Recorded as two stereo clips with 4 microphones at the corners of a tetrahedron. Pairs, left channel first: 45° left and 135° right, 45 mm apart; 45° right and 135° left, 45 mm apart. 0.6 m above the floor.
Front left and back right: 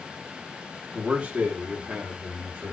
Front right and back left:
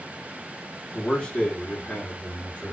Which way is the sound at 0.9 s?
100° right.